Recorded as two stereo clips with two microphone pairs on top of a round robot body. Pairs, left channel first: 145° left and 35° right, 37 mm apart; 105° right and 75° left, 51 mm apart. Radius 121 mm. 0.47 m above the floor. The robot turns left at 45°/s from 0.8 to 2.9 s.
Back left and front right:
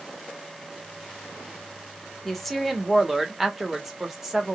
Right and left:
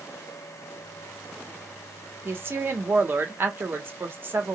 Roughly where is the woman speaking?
Left.